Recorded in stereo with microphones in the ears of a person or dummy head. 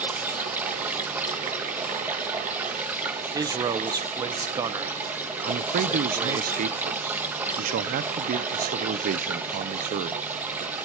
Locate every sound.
0.0 s running water: 15° right (ahead or behind), 1.0 m
3.3 s a man speaking: 25° right (ahead or behind), 0.6 m
5.4 s a man speaking: 45° right (ahead or behind), 0.6 m